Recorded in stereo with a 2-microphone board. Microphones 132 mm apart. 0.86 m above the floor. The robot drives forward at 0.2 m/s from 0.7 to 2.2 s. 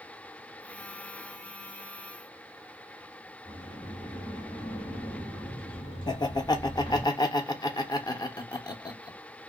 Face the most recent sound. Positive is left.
turn(degrees=30)  # may be behind; listen again after turning